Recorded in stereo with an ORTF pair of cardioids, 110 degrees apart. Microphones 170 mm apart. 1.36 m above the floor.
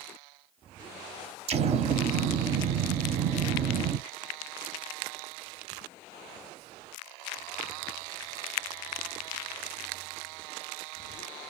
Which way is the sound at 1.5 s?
40° right.